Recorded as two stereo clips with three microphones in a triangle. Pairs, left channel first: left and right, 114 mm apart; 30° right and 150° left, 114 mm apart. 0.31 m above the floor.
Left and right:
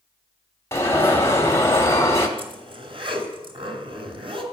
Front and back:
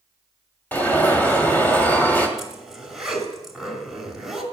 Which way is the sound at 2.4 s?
120° right.